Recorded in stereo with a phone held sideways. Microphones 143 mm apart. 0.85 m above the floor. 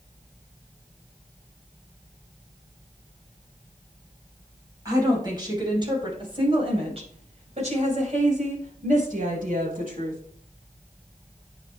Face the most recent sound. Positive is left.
turn(degrees=-75)  # may be behind; listen again after turning